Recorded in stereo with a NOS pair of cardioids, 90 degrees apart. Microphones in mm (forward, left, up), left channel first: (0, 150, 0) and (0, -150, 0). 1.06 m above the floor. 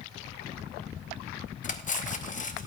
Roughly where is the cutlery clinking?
Ahead left.